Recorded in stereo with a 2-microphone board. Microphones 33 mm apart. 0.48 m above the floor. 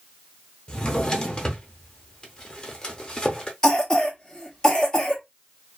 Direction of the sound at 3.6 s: 25° left (ahead or behind).